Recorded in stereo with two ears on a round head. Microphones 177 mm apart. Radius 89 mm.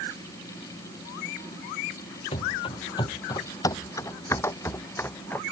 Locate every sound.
2.3 s running footsteps: 25° left (ahead or behind); by 5.4 s 10° left (ahead or behind)